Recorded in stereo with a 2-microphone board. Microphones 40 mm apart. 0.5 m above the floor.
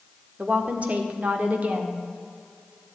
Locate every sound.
0.4 s a woman speaking: 35° right (ahead or behind), 1.4 m